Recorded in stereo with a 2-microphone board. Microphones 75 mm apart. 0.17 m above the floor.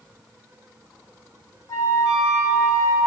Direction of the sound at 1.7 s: 60° left (ahead or behind).